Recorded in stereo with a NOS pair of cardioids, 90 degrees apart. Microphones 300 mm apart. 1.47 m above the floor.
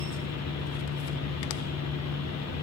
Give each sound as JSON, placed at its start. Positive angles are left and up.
{"t": 0.0, "sound": "a fan", "azimuth_deg": 60, "distance_m": 1.4}